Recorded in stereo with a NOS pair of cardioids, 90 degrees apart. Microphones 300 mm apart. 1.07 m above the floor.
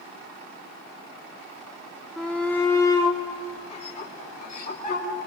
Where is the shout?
Straight ahead, 2.5 m; by 5.1 s 30° left, 5 m.